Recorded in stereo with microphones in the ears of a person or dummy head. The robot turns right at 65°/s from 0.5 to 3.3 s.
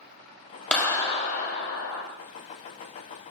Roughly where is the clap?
Ahead.